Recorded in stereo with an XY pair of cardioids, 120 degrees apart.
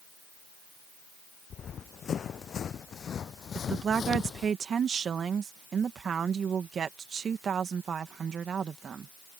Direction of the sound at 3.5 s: 40° right.